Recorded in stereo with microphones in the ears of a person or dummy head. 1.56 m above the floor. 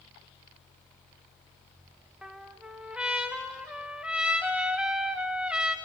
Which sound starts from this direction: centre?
A trumpet, at 2.2 s.